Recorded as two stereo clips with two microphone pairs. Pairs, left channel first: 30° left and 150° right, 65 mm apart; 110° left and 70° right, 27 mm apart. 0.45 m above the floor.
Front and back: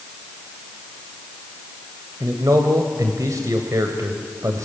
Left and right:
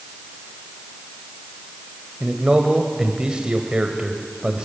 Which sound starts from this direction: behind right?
A man speaking, at 2.2 s.